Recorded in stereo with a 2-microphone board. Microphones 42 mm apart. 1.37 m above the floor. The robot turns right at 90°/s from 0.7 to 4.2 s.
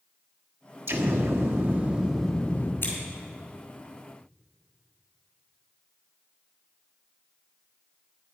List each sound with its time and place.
0.9 s an explosion: 120° right, 1.3 m; by 2.7 s 45° left, 1.3 m
2.8 s scissors: 45° left (ahead or behind), 4 m; by 2.9 s 60° left (ahead or behind), 4 m